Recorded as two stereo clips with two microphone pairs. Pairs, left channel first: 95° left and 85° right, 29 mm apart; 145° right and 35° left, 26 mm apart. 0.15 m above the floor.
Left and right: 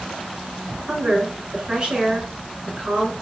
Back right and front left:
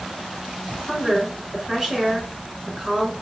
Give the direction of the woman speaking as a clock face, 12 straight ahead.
1 o'clock.